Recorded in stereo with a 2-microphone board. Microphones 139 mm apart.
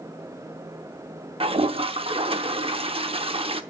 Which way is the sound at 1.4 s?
40° right (ahead or behind).